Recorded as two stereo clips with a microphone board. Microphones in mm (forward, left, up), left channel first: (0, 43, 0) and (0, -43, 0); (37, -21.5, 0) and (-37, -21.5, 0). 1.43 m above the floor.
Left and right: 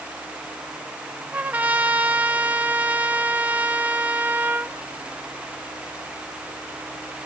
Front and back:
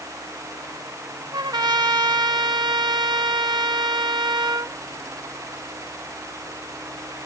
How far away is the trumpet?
About 1.1 m.